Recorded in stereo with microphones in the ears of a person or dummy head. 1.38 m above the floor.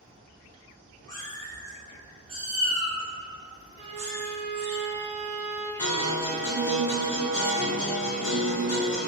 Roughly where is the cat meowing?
Centre.